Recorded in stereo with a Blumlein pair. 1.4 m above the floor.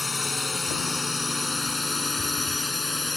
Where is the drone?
10° left; by 3.2 s 5° left.